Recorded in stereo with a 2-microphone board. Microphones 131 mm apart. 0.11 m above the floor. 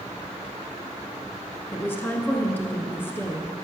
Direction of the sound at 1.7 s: 15° left (ahead or behind).